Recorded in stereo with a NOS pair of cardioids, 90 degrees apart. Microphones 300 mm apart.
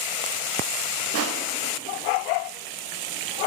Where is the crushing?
55° right, 0.9 m.